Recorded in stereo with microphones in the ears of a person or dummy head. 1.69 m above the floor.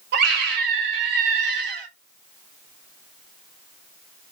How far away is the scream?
About 1.8 m.